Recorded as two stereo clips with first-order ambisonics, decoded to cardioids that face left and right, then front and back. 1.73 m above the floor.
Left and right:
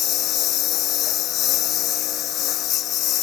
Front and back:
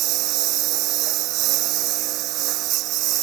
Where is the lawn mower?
140° left.